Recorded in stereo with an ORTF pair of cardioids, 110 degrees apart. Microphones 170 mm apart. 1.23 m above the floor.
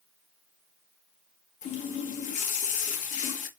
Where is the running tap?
55° left, 0.8 m.